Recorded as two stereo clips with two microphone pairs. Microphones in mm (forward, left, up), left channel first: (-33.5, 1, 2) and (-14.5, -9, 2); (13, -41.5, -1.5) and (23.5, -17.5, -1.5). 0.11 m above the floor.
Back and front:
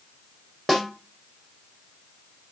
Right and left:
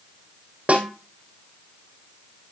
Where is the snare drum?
50° left, 3.5 m.